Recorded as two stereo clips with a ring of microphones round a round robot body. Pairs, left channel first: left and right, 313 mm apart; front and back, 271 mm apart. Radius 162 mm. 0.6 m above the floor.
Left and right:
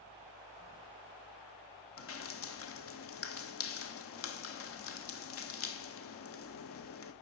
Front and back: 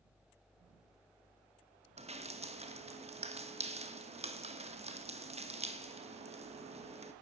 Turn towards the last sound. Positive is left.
turn(degrees=120)